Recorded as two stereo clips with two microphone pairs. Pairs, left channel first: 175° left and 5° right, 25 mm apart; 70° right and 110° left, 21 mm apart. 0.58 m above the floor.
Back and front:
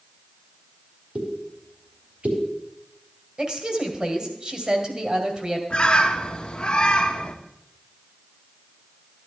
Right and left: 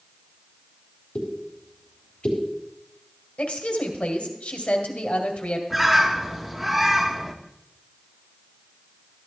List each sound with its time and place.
1.1 s a pop: 25° right, 3.5 m
3.4 s a woman speaking: 60° right, 2.5 m
5.7 s a bird: 165° right, 1.1 m